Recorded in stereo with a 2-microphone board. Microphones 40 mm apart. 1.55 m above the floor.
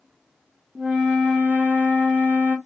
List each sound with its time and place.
0.8 s a flute: 30° right (ahead or behind), 0.8 m